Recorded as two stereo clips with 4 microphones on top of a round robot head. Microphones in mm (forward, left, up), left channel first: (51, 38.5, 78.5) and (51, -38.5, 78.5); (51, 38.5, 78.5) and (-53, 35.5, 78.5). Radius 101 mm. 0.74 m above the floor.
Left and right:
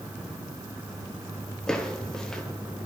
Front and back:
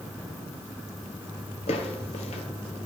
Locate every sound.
1.7 s footsteps: 10° left, 1.0 m